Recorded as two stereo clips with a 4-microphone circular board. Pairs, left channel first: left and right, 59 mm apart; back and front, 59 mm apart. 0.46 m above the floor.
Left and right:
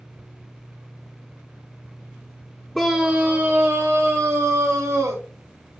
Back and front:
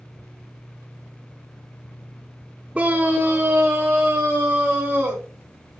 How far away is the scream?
About 0.8 m.